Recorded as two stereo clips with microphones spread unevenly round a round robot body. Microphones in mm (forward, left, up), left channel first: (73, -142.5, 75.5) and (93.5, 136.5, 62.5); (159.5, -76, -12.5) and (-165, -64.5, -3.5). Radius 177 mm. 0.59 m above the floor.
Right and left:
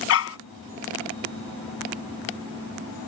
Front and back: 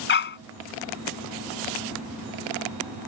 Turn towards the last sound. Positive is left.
turn(degrees=-60)